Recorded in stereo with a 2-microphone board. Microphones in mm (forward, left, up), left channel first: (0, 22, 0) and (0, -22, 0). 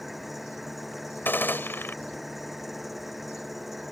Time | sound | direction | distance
0.0 | an engine running | 5° right (ahead or behind) | ?
1.2 | a gunshot | 60° left (ahead or behind) | ?